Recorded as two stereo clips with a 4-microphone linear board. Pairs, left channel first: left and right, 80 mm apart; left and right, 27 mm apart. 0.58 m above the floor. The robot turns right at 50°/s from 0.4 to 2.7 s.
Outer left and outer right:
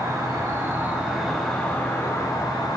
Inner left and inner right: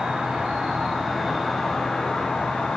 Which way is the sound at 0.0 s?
45° right.